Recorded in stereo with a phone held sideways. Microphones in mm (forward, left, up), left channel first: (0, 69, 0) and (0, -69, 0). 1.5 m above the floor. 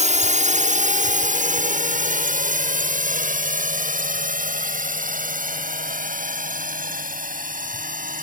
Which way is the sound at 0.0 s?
60° right (ahead or behind).